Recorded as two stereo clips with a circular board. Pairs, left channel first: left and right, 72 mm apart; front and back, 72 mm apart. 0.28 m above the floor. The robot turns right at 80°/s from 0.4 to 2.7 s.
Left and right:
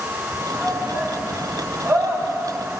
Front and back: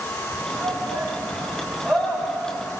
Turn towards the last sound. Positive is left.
turn(degrees=-15)